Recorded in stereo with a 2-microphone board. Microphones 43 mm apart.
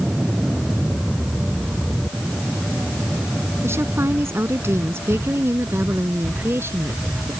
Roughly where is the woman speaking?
Right.